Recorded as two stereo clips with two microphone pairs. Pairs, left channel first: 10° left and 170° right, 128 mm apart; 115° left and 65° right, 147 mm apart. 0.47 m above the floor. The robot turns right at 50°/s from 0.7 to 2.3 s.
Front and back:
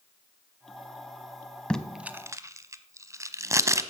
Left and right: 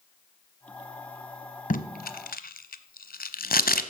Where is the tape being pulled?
90° left, 0.9 m; by 3.8 s 120° left, 0.9 m.